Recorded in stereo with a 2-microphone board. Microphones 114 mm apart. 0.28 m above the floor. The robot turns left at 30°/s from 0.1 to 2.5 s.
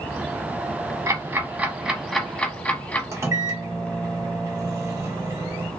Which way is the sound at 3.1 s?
25° right (ahead or behind).